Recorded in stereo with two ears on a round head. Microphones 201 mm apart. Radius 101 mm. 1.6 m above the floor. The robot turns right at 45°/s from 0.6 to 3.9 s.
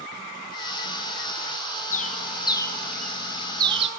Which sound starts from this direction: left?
A bird, at 1.9 s.